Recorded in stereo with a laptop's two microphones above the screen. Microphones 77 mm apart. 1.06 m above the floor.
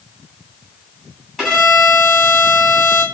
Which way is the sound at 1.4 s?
Centre (ahead or behind).